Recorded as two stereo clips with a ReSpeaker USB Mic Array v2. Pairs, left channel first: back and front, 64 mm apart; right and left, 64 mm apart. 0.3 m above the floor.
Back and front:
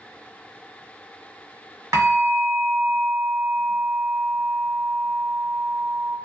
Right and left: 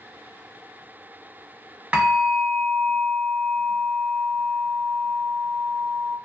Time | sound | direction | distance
1.9 | a bell | 25° left | 1.2 m